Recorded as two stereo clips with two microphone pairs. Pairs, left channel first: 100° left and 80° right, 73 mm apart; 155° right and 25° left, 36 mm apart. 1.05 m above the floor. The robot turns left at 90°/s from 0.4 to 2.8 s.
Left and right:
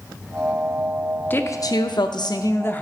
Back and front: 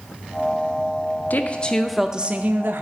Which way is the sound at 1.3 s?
165° left.